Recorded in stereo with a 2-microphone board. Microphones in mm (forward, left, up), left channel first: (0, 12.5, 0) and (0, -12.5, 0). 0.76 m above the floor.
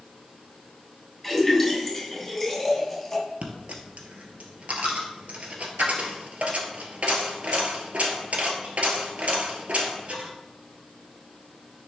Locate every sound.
1.2 s a splash: centre (ahead or behind), 3 m
3.4 s a dropped coin: 60° right (ahead or behind), 1.5 m